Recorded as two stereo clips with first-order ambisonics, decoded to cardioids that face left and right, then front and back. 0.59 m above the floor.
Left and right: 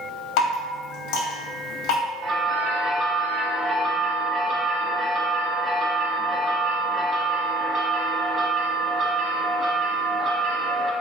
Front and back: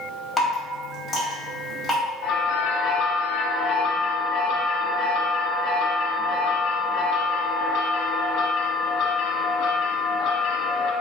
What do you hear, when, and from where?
0.4 s dripping: 75° left, 1.4 m
2.2 s a bell: 35° right, 0.9 m